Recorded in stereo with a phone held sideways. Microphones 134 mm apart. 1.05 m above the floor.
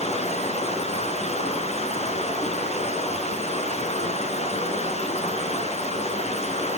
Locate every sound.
0.0 s running water: 55° left (ahead or behind), 4.5 m